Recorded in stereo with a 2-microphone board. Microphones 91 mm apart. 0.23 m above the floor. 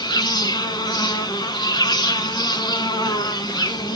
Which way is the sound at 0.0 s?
55° left (ahead or behind).